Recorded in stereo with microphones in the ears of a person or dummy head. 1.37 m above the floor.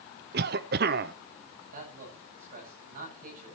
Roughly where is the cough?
Right.